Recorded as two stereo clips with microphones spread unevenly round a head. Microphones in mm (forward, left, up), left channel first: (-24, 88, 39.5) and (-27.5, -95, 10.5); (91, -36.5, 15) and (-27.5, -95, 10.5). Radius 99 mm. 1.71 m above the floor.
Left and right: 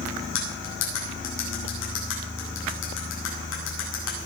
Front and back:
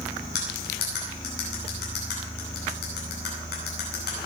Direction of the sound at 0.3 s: 55° left.